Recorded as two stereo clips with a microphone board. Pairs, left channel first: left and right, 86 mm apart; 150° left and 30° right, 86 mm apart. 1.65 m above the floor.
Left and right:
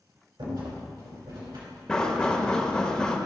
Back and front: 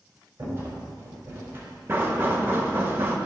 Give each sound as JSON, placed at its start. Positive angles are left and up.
{"t": 0.4, "sound": "a rattle", "azimuth_deg": -90, "distance_m": 3.0}
{"t": 1.9, "sound": "knocking", "azimuth_deg": 15, "distance_m": 1.1}